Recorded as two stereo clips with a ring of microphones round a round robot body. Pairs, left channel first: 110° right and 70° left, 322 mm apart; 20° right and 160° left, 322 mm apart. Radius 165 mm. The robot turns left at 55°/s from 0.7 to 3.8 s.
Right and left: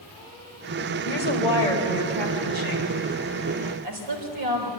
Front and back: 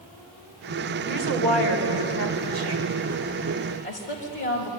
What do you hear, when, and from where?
1.1 s a woman speaking: 165° right, 4.5 m; by 4.7 s 45° left, 4.5 m